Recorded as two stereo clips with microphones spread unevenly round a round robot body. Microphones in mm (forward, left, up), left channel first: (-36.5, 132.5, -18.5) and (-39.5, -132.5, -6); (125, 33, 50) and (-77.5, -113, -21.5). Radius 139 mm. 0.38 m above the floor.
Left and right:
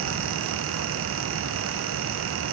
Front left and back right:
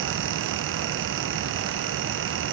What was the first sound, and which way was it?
Only background noise.